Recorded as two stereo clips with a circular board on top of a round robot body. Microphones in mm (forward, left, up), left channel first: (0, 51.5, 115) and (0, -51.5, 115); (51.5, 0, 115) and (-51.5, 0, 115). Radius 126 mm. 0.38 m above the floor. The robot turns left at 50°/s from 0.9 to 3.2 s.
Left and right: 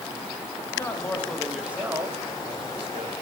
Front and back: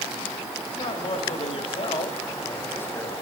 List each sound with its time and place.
0.7 s a man speaking: 30° left, 2 m; by 3.1 s 85° right, 2 m